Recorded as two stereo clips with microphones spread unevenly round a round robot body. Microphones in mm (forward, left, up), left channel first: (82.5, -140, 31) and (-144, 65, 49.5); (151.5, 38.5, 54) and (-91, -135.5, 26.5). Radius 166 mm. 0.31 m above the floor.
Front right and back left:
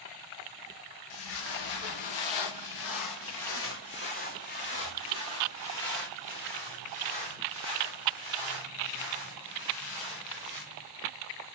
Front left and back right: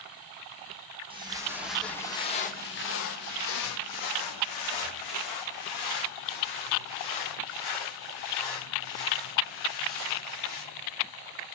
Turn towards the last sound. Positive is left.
turn(degrees=55)